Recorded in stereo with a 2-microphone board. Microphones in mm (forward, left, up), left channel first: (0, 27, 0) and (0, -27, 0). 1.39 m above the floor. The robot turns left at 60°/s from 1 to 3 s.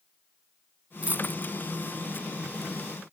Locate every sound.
1.0 s a dropped coin: 25° right (ahead or behind); by 1.5 s 55° right (ahead or behind)